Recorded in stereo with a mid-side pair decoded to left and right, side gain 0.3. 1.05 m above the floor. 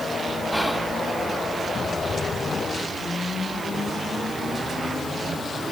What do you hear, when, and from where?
0.5 s whispering: straight ahead, 2 m